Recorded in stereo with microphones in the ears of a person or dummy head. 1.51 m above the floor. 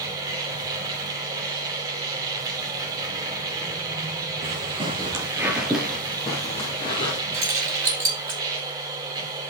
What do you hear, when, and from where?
0.0 s a machine running: 20° right (ahead or behind), 2.5 m
4.4 s footsteps: 40° right (ahead or behind), 2 m; by 7.2 s 30° left (ahead or behind), 3 m
7.3 s keys jangling: 20° right (ahead or behind), 3.5 m